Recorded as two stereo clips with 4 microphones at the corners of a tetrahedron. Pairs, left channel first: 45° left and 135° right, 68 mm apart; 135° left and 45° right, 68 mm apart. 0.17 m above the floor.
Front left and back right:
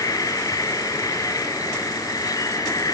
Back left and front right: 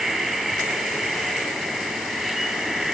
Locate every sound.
0.0 s an insect: 45° left, 3 m